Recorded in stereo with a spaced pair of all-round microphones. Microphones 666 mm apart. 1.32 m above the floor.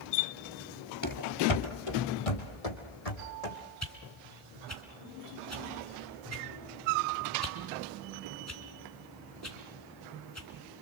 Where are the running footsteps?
25° left (ahead or behind), 1.5 m; by 3.5 s 65° left (ahead or behind), 4.5 m.